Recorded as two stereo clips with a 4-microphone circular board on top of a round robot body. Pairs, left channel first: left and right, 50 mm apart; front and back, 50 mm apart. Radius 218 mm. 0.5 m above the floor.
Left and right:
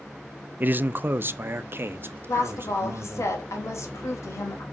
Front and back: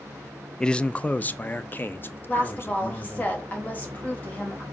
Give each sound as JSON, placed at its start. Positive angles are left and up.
{"t": 0.6, "sound": "a man speaking", "azimuth_deg": -70, "distance_m": 0.8}
{"t": 2.3, "sound": "a woman speaking", "azimuth_deg": 60, "distance_m": 3.0}